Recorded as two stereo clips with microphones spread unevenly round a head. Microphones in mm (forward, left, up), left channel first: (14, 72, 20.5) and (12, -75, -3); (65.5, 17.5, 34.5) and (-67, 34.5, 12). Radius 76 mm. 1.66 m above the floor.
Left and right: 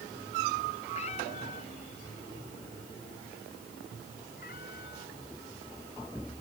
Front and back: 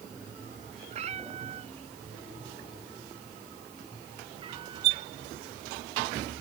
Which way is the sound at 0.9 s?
135° left.